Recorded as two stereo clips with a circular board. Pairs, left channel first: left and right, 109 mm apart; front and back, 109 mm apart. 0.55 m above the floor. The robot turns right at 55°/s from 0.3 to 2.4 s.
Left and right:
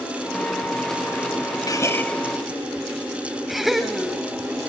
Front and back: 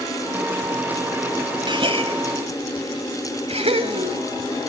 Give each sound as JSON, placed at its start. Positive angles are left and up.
{"t": 1.7, "sound": "a gasp", "azimuth_deg": 140, "distance_m": 1.7}